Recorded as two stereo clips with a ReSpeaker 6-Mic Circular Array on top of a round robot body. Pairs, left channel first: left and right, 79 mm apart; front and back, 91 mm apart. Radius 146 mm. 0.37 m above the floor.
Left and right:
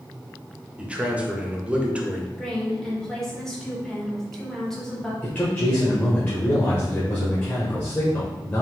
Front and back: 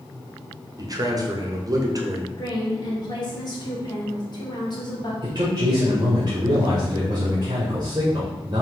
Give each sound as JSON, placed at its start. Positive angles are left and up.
{"t": 0.8, "sound": "a man speaking", "azimuth_deg": -160, "distance_m": 1.0}
{"t": 2.4, "sound": "a woman speaking", "azimuth_deg": 10, "distance_m": 1.8}
{"t": 5.2, "sound": "a man speaking", "azimuth_deg": 155, "distance_m": 1.6}